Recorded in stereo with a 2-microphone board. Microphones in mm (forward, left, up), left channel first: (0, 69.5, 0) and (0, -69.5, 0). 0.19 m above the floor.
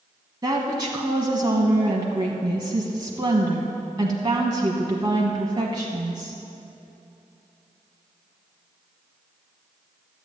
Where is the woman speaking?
30° right (ahead or behind), 1.1 m.